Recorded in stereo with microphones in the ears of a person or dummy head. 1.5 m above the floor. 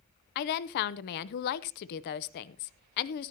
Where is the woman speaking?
55° left (ahead or behind), 0.7 m.